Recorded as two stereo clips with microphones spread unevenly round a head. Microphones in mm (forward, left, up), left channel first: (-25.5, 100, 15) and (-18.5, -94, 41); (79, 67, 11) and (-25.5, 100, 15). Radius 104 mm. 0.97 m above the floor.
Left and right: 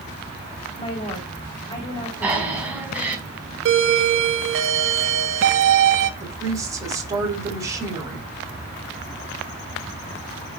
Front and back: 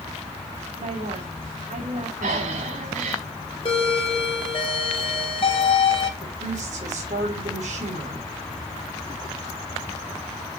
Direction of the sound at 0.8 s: 160° left.